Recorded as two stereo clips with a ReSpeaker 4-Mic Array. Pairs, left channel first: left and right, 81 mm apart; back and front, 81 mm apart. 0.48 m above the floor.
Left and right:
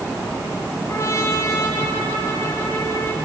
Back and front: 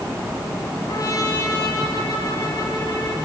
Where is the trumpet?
145° left, 4 m.